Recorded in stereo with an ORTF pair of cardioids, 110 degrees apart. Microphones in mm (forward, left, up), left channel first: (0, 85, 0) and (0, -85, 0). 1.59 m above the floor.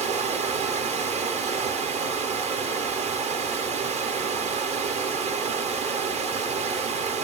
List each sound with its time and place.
0.0 s running water: 40° right, 0.8 m